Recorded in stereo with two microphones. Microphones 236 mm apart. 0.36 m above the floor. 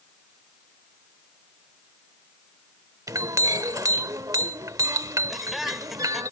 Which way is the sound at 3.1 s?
15° right (ahead or behind).